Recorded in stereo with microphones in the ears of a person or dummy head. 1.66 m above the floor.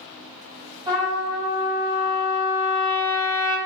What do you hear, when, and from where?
0.9 s a trumpet: 25° right (ahead or behind), 1.5 m